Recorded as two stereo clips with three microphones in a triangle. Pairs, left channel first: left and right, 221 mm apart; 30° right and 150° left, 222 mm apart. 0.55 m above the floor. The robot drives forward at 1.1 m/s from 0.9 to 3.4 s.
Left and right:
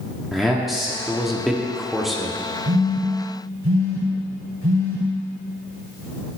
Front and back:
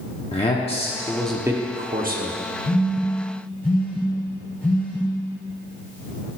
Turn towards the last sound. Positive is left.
turn(degrees=-115)